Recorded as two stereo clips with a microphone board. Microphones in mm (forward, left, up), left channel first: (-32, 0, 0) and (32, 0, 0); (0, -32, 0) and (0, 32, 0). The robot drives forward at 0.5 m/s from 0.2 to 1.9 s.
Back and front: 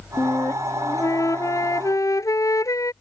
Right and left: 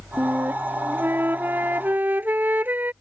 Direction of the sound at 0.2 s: 145° left.